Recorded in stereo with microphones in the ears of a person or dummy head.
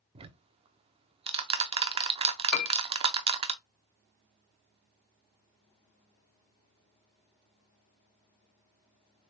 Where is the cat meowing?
No cat meowing in this recording.